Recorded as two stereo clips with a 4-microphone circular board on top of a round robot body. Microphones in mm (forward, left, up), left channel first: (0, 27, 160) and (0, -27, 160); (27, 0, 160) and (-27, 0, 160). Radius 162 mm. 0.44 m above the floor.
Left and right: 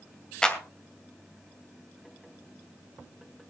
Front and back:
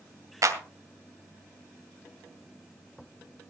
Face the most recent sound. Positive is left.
turn(degrees=165)